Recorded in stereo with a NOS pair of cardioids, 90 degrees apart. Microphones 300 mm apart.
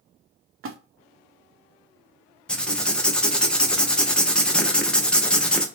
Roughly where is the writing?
Ahead.